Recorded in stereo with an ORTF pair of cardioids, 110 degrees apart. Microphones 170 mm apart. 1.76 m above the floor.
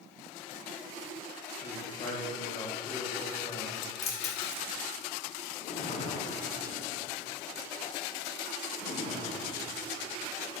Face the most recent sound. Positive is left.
turn(degrees=45)